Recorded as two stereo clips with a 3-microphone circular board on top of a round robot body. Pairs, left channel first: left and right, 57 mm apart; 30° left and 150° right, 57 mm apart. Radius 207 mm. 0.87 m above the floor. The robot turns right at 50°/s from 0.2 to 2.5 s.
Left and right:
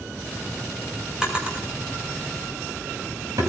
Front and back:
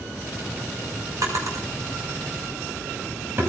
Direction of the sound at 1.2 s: 170° right.